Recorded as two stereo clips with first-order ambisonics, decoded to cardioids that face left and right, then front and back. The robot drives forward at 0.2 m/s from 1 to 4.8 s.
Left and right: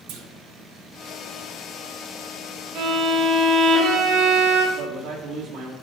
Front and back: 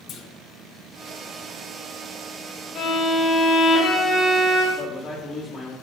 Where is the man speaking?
105° right, 1.6 m.